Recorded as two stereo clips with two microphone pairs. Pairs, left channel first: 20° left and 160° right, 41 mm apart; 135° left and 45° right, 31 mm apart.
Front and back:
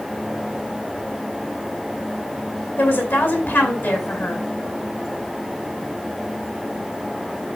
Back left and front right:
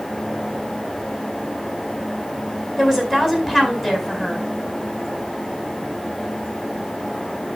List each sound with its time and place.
2.8 s a woman speaking: 35° left, 4.5 m